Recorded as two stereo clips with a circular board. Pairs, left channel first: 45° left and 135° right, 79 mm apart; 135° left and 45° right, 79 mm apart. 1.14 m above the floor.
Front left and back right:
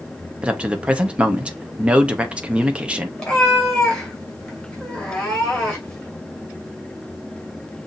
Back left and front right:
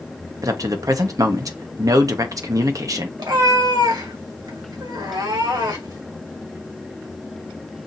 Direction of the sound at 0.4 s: 60° right.